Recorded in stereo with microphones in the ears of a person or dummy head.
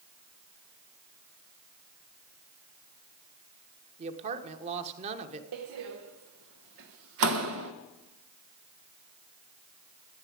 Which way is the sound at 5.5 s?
65° right (ahead or behind).